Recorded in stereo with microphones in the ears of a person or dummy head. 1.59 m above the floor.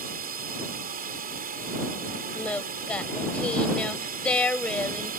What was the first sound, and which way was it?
A drone, 50° right (ahead or behind).